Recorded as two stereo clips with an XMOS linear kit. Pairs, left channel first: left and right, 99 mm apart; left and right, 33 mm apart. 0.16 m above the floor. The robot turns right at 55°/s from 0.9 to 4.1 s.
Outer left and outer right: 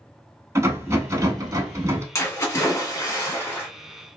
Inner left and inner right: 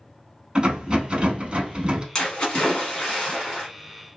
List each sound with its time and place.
0.6 s a rattle: 120° right, 0.6 m; by 2.0 s 55° right, 0.6 m
2.1 s a splash: 60° left, 1.3 m; by 3.7 s 140° left, 1.3 m